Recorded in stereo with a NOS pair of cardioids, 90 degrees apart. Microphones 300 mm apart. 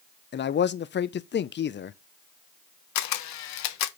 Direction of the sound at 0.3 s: 40° left.